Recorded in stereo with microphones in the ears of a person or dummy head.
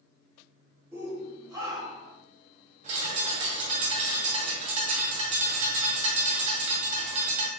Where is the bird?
40° right (ahead or behind), 1.9 m.